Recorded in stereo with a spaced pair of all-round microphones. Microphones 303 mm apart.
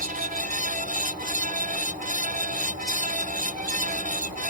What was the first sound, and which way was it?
A fan, 25° right (ahead or behind).